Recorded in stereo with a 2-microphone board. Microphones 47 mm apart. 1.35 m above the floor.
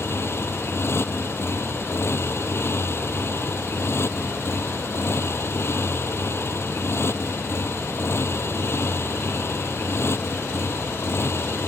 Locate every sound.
0.0 s a motorcycle: 60° left (ahead or behind)